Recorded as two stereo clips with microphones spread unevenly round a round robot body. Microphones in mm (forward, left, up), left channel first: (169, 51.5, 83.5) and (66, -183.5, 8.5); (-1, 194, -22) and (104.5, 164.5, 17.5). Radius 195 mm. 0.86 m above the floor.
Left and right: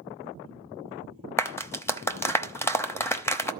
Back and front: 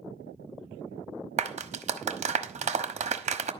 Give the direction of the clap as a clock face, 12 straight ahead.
1 o'clock.